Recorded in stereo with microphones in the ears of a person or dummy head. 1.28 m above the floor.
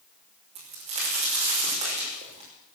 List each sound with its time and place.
0.6 s a crack: 40° right (ahead or behind), 5 m